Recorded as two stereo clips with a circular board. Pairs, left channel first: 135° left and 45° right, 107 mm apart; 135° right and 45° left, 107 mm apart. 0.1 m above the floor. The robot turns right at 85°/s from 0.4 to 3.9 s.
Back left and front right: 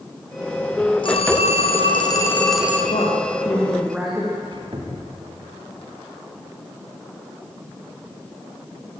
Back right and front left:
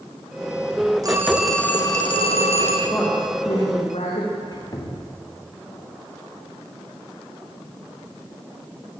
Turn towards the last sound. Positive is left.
turn(degrees=-85)